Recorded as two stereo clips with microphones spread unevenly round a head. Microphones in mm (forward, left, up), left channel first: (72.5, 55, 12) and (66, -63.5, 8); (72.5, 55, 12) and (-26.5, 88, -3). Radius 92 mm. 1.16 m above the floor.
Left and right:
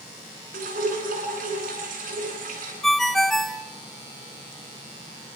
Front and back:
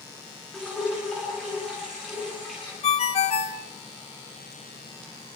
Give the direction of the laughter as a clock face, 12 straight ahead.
I don't hear laughter.